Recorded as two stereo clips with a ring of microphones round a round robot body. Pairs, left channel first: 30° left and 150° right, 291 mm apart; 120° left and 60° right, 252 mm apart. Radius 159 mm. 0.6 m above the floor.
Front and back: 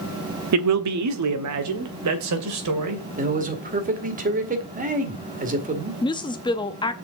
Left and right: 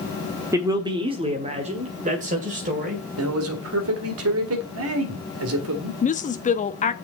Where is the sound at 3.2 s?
90° right, 1.9 m.